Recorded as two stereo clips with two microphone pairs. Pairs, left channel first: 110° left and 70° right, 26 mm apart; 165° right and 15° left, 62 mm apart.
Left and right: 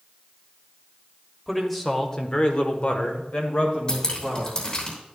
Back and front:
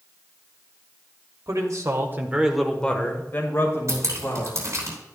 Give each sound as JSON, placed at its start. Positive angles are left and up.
{"t": 1.5, "sound": "a man speaking", "azimuth_deg": 20, "distance_m": 1.8}
{"t": 3.9, "sound": "dripping", "azimuth_deg": 55, "distance_m": 3.5}